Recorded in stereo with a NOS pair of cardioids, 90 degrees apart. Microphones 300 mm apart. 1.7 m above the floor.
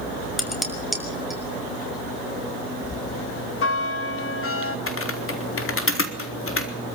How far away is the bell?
About 3 m.